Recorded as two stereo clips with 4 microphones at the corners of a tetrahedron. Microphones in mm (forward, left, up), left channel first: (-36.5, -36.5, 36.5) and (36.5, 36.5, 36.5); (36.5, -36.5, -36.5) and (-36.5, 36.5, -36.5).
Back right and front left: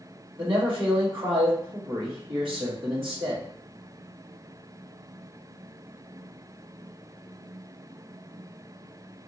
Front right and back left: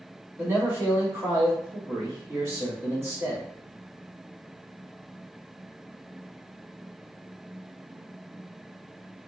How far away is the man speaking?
About 1.5 m.